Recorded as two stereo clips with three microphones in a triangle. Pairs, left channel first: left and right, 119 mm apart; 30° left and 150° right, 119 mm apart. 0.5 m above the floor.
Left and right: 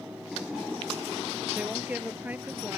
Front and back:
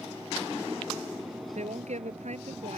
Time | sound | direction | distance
1.6 | a woman speaking | 165° right | ?